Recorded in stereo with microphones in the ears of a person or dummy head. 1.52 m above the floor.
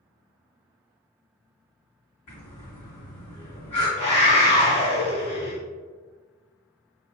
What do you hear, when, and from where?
2.3 s breathing: 40° left (ahead or behind), 1.7 m
4.0 s a scream: 45° left (ahead or behind), 1.6 m